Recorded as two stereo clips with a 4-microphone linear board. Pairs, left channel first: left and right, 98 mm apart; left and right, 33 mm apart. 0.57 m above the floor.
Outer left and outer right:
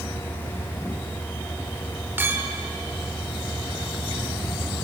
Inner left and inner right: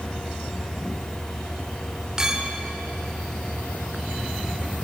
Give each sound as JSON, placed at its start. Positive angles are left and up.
{"t": 2.2, "sound": "a clink", "side_deg": -20, "distance_m": 1.1}